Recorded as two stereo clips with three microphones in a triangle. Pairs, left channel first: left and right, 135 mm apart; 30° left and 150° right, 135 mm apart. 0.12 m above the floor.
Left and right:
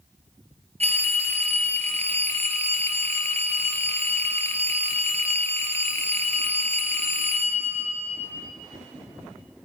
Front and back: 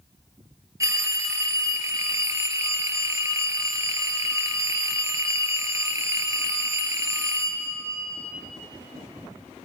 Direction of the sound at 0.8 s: 90° right.